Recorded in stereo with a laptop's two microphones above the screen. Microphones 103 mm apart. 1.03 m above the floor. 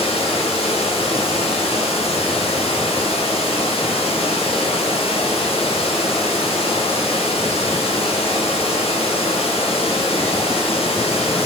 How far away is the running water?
About 1.1 m.